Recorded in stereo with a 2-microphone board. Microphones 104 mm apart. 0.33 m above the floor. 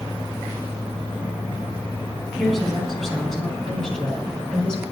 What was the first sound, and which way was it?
A woman speaking, 5° left (ahead or behind).